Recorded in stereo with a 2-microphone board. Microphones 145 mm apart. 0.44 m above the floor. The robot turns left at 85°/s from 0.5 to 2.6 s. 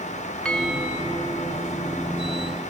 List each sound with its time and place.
0.5 s a bell: 10° left; by 1.7 s 90° right